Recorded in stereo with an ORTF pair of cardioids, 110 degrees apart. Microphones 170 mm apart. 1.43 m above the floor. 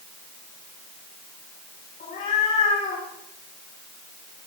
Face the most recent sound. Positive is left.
turn(degrees=55)